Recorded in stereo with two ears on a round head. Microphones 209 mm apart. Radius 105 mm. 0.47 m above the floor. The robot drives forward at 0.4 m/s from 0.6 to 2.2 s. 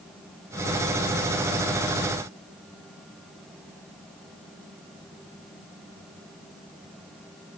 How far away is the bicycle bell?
I don't hear a bicycle bell.